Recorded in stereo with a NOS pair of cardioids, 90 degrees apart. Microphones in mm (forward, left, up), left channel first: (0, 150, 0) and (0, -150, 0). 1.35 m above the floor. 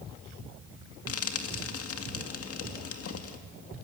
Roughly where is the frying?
Ahead left.